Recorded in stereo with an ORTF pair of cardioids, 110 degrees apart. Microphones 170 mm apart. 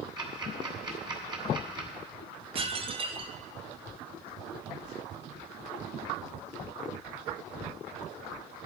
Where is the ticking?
30° right, 3 m.